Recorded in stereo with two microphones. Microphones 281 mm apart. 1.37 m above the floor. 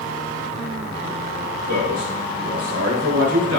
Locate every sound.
1.7 s a man speaking: 70° right (ahead or behind), 5 m; by 3.6 s 75° right (ahead or behind), 4 m